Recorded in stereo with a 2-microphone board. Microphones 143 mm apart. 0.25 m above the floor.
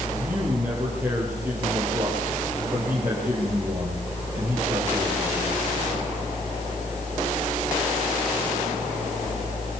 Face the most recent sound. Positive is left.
turn(degrees=-15)  # may be behind; listen again after turning